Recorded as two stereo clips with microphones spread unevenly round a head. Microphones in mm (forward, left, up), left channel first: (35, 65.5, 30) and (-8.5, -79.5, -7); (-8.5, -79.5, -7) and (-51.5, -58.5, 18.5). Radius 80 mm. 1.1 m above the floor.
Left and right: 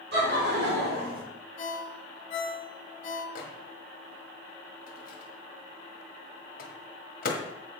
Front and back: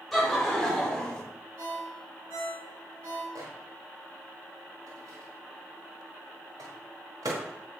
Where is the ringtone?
120° left, 2 m.